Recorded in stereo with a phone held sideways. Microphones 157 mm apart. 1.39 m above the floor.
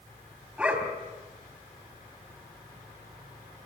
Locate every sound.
0.6 s a dog barking: 10° right (ahead or behind), 3.5 m